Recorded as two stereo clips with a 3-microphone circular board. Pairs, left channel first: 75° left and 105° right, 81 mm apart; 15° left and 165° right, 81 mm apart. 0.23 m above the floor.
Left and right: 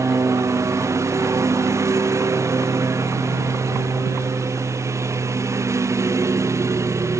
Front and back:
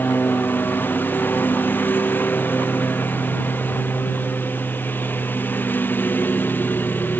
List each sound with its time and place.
0.0 s a lawn mower: 50° right